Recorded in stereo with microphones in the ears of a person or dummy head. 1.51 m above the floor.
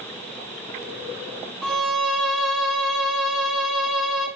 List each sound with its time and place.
1.6 s a violin: centre (ahead or behind), 1.9 m